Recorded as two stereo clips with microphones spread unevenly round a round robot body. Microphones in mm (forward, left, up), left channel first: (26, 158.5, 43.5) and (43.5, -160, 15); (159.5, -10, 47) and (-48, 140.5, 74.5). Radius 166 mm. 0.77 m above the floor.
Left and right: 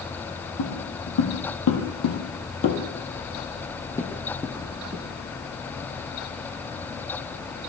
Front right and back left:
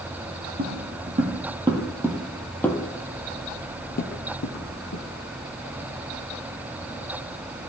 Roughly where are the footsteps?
Left.